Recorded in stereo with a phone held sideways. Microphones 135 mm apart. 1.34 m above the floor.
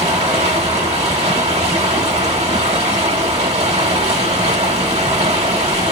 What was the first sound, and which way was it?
Running water, 50° right (ahead or behind).